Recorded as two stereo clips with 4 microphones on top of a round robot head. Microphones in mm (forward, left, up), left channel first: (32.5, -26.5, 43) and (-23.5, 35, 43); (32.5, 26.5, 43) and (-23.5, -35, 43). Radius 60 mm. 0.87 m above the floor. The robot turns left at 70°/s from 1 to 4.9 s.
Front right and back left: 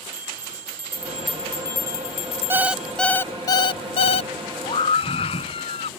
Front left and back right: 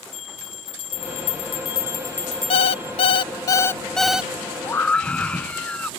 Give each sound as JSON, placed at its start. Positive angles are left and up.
{"t": 0.1, "sound": "a bell", "azimuth_deg": 60}
{"t": 2.5, "sound": "an alarm clock", "azimuth_deg": 70}
{"t": 4.6, "sound": "a scream", "azimuth_deg": -10}